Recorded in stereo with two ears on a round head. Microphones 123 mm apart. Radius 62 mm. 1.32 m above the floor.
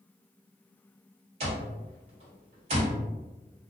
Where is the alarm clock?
50° right (ahead or behind), 1.3 m.